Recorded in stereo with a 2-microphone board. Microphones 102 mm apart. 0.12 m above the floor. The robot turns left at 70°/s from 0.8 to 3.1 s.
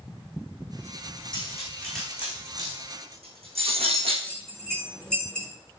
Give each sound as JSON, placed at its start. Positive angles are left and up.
{"t": 1.3, "sound": "cutlery clinking", "side_deg": 45, "distance_m": 4.0}
{"t": 4.2, "sound": "a bell", "side_deg": 10, "distance_m": 1.8}